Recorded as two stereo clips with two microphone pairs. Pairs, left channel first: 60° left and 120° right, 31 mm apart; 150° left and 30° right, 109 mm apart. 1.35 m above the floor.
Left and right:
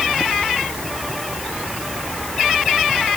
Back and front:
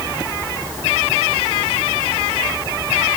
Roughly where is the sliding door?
No sliding door in this recording.